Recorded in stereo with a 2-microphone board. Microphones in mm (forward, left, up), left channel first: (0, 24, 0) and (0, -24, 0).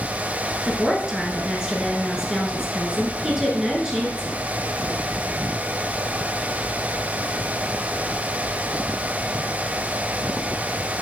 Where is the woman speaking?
15° right (ahead or behind), 1.3 m.